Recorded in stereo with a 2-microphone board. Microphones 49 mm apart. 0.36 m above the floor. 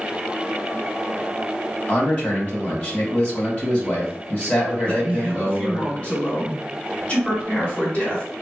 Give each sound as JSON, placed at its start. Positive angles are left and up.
{"t": 1.9, "sound": "a man speaking", "side_deg": 25, "distance_m": 1.8}
{"t": 4.8, "sound": "a man speaking", "side_deg": 25, "distance_m": 1.5}